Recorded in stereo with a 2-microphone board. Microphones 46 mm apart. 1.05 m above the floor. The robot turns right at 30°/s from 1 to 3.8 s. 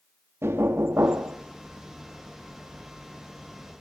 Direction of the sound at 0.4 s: 70° right (ahead or behind).